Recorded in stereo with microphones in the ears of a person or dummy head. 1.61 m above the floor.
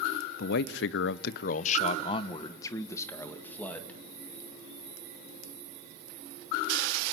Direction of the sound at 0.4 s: 65° left (ahead or behind).